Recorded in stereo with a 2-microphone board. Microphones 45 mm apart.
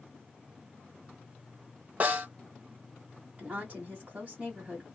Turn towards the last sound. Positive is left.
turn(degrees=-25)  # may be behind; listen again after turning